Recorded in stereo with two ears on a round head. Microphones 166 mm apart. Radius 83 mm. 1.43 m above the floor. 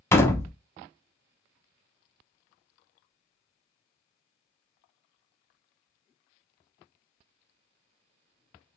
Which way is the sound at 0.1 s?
15° left (ahead or behind).